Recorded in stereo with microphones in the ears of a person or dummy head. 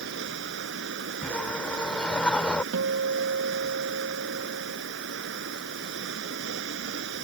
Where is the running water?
70° right (ahead or behind).